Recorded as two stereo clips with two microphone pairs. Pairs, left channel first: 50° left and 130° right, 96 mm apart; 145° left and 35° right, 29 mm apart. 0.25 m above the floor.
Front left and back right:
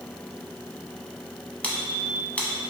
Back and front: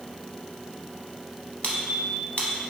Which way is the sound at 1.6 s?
120° left.